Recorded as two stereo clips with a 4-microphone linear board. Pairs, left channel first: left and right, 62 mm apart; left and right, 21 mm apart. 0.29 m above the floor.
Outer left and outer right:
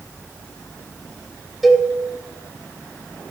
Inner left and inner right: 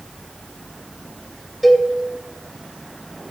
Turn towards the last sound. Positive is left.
turn(degrees=0)  # may be behind; listen again after turning